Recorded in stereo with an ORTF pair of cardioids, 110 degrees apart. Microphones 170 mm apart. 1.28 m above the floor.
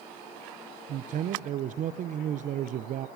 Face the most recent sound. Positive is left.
turn(degrees=-55)